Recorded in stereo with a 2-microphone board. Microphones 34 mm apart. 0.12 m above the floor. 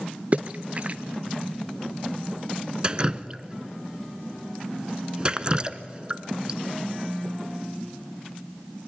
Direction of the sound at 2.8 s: 30° right (ahead or behind).